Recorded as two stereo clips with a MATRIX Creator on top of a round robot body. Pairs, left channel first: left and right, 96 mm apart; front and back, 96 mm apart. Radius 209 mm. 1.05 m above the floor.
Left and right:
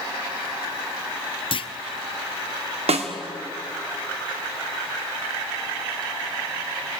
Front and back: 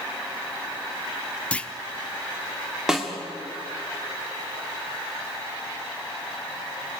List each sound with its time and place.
1.5 s a clunk: 75° left, 1.0 m
2.9 s a snare drum: 95° right, 1.6 m